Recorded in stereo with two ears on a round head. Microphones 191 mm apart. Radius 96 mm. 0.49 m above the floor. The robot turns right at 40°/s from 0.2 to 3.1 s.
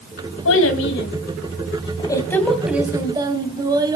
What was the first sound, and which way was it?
A child speaking, 95° left.